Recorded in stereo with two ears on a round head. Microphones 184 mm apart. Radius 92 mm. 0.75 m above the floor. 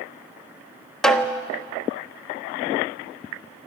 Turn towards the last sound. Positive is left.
turn(degrees=5)  # may be behind; listen again after turning